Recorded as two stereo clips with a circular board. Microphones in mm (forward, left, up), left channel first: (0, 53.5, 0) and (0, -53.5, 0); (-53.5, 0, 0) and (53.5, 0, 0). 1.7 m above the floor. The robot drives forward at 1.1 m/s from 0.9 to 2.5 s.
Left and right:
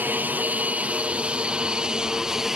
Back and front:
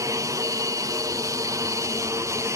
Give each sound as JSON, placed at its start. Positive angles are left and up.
{"t": 0.0, "sound": "an aircraft", "azimuth_deg": -30}